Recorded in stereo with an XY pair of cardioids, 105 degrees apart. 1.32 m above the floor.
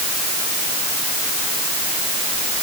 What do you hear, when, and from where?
Only background noise.